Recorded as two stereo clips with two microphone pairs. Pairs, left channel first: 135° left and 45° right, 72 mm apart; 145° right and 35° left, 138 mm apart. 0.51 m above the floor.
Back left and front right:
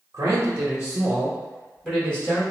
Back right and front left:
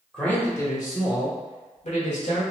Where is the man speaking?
60° right, 0.9 m; by 2.4 s 150° right, 1.6 m.